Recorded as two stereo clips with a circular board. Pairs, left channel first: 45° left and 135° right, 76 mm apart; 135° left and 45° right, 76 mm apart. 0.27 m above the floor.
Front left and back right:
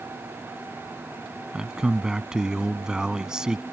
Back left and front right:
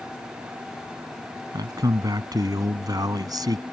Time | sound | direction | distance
1.5 | a man speaking | 55° right | ?